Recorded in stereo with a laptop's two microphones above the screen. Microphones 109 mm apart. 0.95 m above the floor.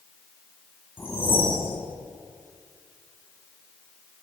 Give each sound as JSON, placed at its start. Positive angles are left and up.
{"t": 1.0, "sound": "a whoosh", "side_deg": 20, "distance_m": 2.0}